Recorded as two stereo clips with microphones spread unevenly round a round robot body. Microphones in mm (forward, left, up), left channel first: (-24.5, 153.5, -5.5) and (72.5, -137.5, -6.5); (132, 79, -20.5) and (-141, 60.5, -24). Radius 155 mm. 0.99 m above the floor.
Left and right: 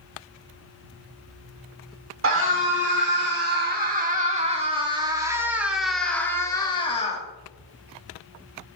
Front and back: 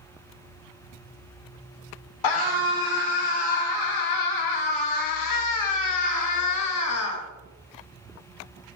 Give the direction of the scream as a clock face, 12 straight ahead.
1 o'clock.